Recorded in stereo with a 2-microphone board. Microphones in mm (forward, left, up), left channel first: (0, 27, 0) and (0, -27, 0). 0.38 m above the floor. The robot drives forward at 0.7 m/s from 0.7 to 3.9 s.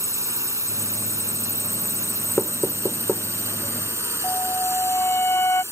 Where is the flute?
55° left (ahead or behind).